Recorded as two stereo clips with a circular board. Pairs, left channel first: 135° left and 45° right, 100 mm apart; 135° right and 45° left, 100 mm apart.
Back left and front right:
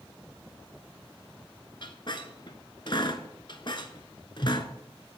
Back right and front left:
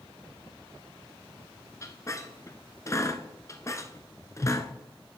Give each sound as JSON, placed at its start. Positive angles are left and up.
{"t": 1.8, "sound": "a squeak", "azimuth_deg": 170, "distance_m": 0.8}